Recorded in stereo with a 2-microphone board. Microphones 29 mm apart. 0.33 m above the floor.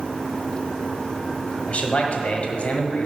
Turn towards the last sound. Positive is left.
turn(degrees=50)  # may be behind; listen again after turning